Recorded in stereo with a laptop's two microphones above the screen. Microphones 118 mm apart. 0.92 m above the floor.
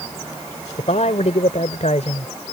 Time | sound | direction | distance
0.8 | a man speaking | 75° left (ahead or behind) | ?